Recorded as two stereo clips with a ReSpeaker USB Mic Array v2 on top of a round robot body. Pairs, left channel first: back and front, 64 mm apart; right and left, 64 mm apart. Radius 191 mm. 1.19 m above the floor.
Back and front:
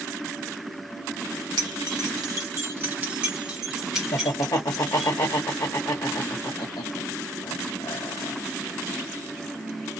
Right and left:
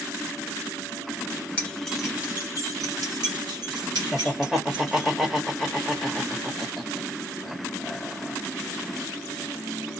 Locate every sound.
1.6 s keys jangling: 20° right, 0.6 m; by 5.1 s 95° left, 1.6 m
4.1 s laughter: 170° left, 0.9 m